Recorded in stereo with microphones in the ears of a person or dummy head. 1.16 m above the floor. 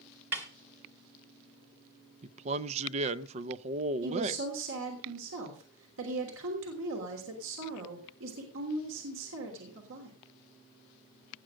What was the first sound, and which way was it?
A snare drum, 10° right (ahead or behind).